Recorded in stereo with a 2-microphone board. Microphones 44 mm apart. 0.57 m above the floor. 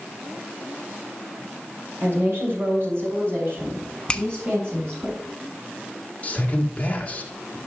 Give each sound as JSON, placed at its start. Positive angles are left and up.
{"t": 2.0, "sound": "a woman speaking", "side_deg": -60, "distance_m": 2.0}
{"t": 4.1, "sound": "a finger snap", "side_deg": 20, "distance_m": 0.6}
{"t": 6.2, "sound": "a man speaking", "side_deg": 30, "distance_m": 1.7}